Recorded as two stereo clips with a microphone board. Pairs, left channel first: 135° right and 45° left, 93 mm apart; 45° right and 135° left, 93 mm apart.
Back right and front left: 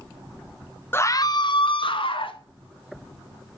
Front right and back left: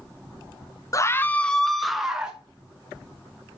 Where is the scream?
80° right, 0.5 m; by 2.4 s 145° right, 1.3 m.